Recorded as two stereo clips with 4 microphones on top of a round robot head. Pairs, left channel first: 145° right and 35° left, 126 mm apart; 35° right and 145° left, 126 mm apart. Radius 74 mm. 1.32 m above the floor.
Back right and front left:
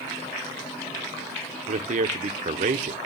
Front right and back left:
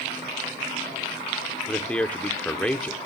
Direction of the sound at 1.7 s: 45° left.